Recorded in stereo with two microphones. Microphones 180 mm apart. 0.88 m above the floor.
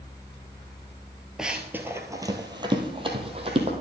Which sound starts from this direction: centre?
Running footsteps, at 1.4 s.